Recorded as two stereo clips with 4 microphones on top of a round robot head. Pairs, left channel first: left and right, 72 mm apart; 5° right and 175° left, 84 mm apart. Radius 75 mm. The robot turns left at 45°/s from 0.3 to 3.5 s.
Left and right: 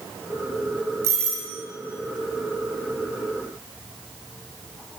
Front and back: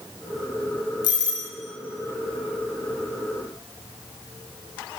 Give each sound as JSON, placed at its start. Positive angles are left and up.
{"t": 1.0, "sound": "a doorbell", "azimuth_deg": -35, "distance_m": 5.0}